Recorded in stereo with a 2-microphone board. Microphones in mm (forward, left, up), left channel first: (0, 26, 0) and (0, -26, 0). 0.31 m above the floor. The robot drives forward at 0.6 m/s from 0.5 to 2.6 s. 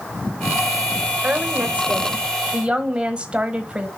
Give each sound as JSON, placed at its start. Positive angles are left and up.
{"t": 1.2, "sound": "a woman speaking", "side_deg": -30, "distance_m": 0.9}